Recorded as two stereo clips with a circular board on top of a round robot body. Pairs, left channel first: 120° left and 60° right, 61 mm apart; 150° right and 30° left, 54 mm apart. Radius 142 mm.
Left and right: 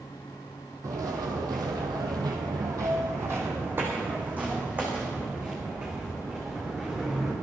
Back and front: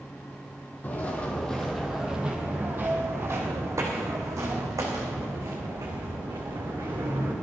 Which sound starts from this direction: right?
Footsteps, at 0.8 s.